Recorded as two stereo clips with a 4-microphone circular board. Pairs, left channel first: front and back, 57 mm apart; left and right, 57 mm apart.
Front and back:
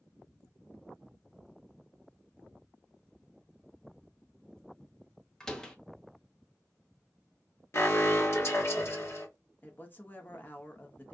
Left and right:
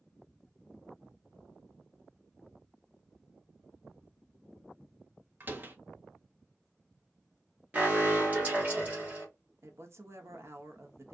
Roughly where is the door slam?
Right.